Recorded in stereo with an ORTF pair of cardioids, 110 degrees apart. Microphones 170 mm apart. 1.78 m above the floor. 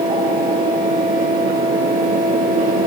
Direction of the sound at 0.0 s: 60° right.